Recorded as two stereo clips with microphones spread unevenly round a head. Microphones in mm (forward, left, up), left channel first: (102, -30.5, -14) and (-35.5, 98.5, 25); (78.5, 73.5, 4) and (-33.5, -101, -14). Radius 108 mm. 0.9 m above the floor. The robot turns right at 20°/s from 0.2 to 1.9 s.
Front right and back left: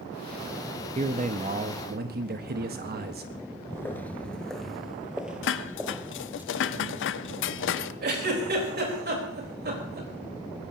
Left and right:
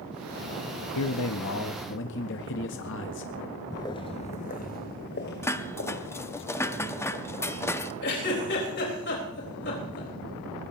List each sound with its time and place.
0.9 s a man speaking: 75° left, 0.8 m; by 3.6 s 95° left, 0.8 m
3.7 s footsteps: 45° left, 0.9 m; by 6.4 s 65° left, 1.9 m
5.4 s dishes clattering: 20° right, 0.7 m
8.0 s a giggle: 100° left, 4 m